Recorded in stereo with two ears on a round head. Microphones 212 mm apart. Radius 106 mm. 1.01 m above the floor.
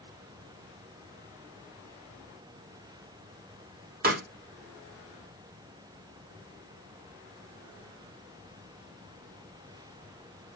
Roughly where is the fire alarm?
I don't hear a fire alarm.